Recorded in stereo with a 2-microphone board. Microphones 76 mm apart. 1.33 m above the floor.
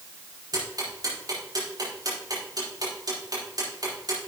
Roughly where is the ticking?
Right.